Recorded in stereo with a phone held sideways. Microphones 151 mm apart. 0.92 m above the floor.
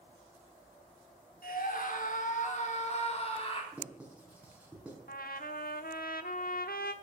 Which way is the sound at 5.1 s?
75° left (ahead or behind).